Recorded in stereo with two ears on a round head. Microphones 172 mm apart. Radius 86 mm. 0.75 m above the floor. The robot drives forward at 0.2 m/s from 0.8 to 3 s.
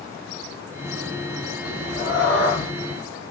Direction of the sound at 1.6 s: 65° left (ahead or behind).